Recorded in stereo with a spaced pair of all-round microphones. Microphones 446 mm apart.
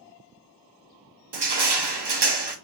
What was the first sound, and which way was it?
Crushing, 65° right (ahead or behind).